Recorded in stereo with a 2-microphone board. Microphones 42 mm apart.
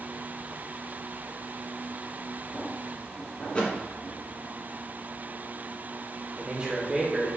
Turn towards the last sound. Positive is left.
turn(degrees=-20)  # may be behind; listen again after turning